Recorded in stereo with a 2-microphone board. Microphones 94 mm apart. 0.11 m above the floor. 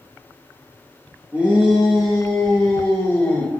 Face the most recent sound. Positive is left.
turn(degrees=20)  # may be behind; listen again after turning